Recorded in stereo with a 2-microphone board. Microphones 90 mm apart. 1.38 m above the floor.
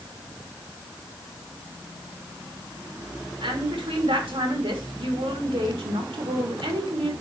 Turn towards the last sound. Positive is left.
turn(degrees=-85)